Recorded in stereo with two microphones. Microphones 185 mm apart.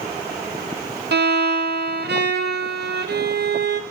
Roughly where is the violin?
Right.